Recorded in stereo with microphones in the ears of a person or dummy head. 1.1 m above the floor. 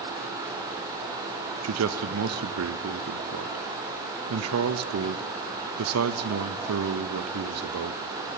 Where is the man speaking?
80° right, 0.7 m.